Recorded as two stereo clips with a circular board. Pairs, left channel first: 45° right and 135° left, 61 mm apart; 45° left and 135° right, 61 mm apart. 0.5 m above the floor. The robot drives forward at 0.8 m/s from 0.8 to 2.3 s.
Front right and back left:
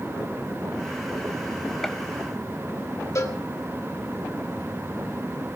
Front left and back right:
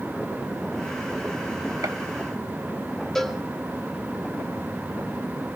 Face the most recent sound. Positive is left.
turn(degrees=-35)